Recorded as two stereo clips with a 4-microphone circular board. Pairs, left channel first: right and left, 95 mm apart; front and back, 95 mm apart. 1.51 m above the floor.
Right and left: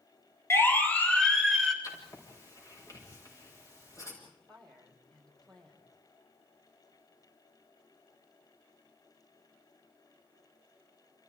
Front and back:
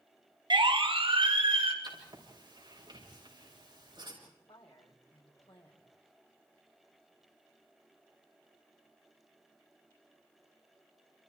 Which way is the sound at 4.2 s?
5° right.